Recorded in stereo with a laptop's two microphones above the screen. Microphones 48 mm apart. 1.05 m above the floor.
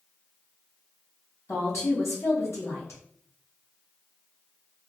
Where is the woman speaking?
70° left (ahead or behind), 1.3 m.